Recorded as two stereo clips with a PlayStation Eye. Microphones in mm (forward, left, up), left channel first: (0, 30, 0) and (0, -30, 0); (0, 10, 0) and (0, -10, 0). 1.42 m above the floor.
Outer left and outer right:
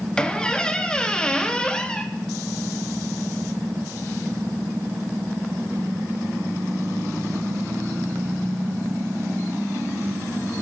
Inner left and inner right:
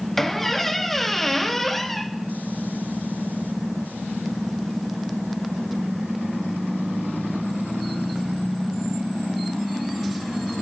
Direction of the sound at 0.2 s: 15° left (ahead or behind).